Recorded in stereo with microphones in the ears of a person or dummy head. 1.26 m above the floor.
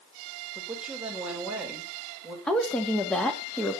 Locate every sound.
0.6 s a woman speaking: 10° right (ahead or behind), 4.5 m
2.5 s a woman speaking: 10° left (ahead or behind), 2.5 m